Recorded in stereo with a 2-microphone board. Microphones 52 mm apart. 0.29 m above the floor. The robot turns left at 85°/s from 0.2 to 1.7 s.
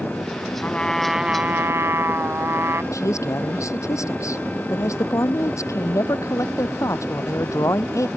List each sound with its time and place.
0.6 s a trumpet: 35° left; by 2.8 s 60° right
2.9 s a man speaking: 65° left (ahead or behind)